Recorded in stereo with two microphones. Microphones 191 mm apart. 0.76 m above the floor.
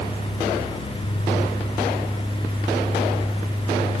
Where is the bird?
I don't hear a bird.